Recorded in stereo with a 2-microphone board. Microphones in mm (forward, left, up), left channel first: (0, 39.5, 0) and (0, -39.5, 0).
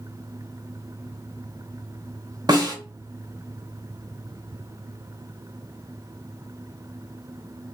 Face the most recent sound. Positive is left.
turn(degrees=-55)  # may be behind; listen again after turning